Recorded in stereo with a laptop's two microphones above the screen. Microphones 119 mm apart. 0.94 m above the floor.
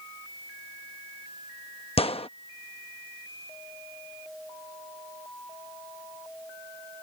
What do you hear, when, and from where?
2.0 s a gunshot: 55° left (ahead or behind)